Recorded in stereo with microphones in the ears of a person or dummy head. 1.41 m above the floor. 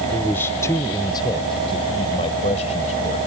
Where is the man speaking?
5° left (ahead or behind); by 3.3 s 40° left (ahead or behind).